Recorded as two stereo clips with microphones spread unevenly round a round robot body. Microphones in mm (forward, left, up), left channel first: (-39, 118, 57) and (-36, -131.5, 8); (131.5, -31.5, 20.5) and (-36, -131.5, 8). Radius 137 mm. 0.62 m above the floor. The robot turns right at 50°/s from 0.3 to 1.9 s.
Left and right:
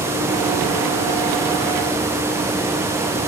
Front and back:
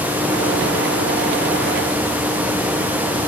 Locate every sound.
Only background noise.